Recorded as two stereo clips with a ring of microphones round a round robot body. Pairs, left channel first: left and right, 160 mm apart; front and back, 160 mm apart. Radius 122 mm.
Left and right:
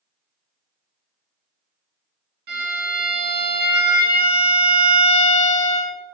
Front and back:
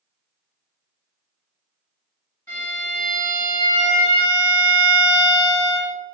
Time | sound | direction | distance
2.5 | a violin | 80° right | 0.9 m